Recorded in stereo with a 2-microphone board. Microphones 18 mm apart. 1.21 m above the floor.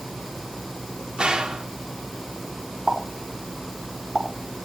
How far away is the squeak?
No squeak in this recording.